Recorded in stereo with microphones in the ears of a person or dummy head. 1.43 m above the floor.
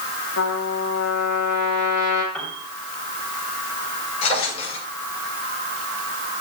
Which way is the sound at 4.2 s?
35° left (ahead or behind).